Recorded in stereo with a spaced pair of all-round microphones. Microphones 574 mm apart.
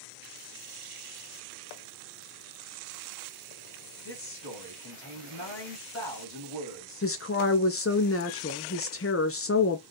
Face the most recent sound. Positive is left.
turn(degrees=25)  # may be behind; listen again after turning